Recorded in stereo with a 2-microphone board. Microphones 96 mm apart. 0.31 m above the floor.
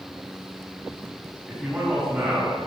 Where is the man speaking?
10° right (ahead or behind), 3 m.